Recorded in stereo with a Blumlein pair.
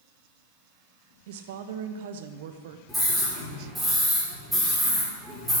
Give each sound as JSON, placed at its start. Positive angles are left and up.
{"t": 1.3, "sound": "a woman speaking", "azimuth_deg": -55, "distance_m": 1.0}
{"t": 2.9, "sound": "a scream", "azimuth_deg": -5, "distance_m": 4.5}